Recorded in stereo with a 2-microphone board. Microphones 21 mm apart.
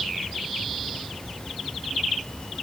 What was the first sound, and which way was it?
Only background noise.